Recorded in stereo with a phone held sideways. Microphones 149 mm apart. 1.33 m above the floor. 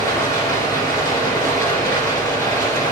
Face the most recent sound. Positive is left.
turn(degrees=15)  # may be behind; listen again after turning